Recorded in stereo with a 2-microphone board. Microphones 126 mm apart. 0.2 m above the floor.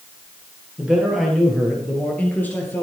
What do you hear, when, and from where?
0.8 s a man speaking: 5° right (ahead or behind), 5.5 m; by 2.8 s 20° left (ahead or behind), 4.5 m